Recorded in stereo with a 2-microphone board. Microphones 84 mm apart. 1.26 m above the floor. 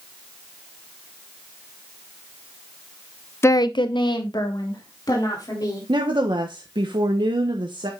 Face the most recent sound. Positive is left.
turn(degrees=-70)  # may be behind; listen again after turning